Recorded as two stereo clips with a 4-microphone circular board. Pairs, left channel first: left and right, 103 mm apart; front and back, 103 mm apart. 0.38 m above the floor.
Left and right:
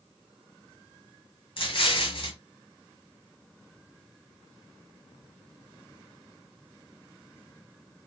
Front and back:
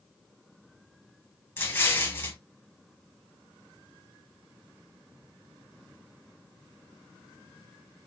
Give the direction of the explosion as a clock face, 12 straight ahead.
10 o'clock.